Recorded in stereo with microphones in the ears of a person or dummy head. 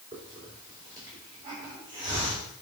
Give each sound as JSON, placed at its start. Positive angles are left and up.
{"t": 0.1, "sound": "a hiss", "side_deg": -25, "distance_m": 3.5}